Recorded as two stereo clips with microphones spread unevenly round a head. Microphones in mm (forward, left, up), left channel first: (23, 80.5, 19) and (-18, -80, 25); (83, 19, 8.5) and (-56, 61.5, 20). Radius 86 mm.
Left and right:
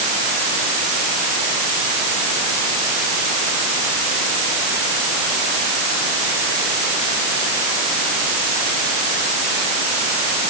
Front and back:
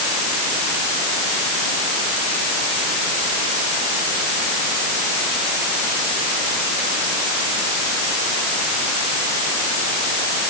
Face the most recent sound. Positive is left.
No sound to turn to.